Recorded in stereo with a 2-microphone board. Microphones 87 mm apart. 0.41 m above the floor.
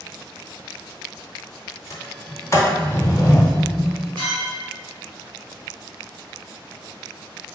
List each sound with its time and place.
1.9 s a sliding door: 35° left (ahead or behind), 0.8 m
4.2 s a clink: 70° right (ahead or behind), 1.5 m